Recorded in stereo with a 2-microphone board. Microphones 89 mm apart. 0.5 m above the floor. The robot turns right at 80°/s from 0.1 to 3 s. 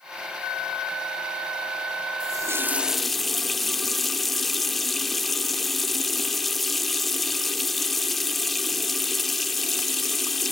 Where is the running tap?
60° right, 0.7 m; by 10.5 s 5° left, 0.7 m.